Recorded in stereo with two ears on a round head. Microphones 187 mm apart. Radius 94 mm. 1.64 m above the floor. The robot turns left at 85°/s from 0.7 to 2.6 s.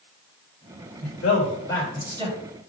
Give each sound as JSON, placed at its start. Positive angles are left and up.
{"t": 1.0, "sound": "a man speaking", "side_deg": 80, "distance_m": 3.5}